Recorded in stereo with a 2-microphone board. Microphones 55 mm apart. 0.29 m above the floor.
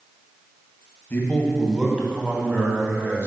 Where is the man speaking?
35° left (ahead or behind), 1.5 m; by 3.3 s 45° right (ahead or behind), 3 m.